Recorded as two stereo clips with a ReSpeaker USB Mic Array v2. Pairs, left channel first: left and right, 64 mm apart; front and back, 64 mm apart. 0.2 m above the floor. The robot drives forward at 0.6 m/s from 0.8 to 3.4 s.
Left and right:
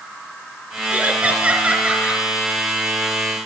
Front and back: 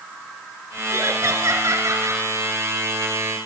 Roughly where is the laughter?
Behind right.